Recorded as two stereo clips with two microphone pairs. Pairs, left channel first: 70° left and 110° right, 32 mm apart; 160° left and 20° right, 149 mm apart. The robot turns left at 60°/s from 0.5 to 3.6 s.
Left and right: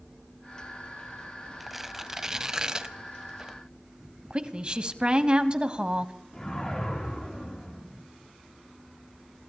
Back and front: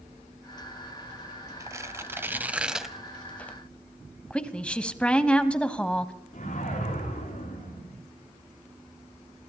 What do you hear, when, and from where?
1.6 s tearing paper: 25° right, 0.9 m; by 3.6 s 145° right, 0.9 m
4.3 s a woman speaking: 125° right, 1.1 m
6.3 s a whoosh: 135° left, 7 m